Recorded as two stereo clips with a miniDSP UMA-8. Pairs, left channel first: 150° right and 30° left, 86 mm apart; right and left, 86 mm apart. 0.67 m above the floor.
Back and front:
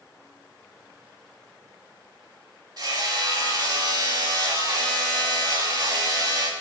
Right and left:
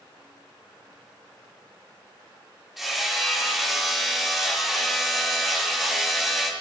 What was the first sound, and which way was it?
Hammering, straight ahead.